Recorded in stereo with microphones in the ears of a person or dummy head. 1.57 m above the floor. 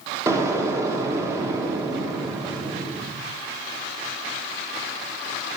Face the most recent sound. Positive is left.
turn(degrees=-15)  # may be behind; listen again after turning